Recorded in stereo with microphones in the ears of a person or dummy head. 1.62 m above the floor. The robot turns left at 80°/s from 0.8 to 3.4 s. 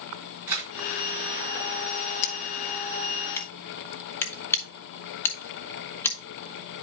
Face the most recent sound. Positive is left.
turn(degrees=10)  # may be behind; listen again after turning